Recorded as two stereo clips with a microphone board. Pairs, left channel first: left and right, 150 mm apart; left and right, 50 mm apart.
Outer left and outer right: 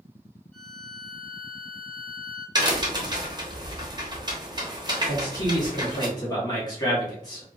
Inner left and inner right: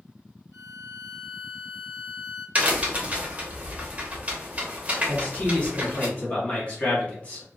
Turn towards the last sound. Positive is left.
turn(degrees=25)  # may be behind; listen again after turning